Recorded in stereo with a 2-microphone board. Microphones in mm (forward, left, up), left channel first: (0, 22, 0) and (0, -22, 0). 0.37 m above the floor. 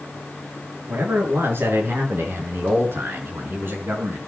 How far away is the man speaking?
About 6 m.